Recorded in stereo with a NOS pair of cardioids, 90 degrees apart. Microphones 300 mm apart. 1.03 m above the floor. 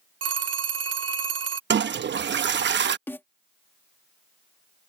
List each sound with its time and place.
0.2 s a phone ringing: 55° right
1.7 s a toilet flushing: 35° right
3.1 s a snare drum: 5° left